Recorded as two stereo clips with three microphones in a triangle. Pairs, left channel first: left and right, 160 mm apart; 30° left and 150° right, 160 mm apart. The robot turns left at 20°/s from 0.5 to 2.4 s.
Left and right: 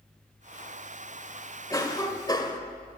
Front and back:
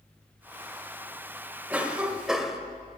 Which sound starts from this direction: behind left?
A cough, at 1.7 s.